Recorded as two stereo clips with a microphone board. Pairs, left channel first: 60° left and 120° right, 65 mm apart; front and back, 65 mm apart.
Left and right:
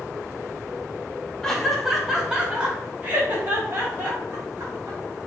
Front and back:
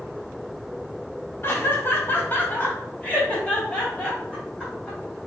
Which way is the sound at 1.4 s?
15° right.